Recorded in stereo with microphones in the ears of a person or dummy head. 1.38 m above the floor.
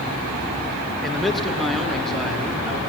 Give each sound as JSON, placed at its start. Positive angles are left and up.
{"t": 1.0, "sound": "a man speaking", "side_deg": 0, "distance_m": 1.2}